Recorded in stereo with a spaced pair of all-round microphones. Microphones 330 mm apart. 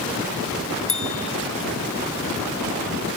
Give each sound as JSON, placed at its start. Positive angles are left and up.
{"t": 0.9, "sound": "a bell", "side_deg": 40, "distance_m": 3.0}